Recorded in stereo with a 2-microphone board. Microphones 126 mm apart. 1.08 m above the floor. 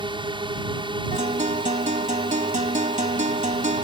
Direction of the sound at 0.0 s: 40° right (ahead or behind).